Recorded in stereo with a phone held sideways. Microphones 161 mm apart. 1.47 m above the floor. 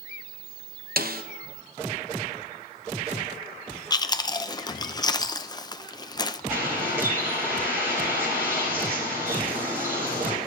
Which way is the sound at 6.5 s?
15° right (ahead or behind).